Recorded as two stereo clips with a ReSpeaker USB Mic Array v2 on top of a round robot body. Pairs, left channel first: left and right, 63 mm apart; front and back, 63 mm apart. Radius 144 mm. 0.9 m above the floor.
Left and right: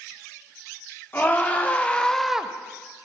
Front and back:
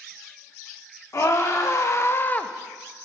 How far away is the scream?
About 1.9 m.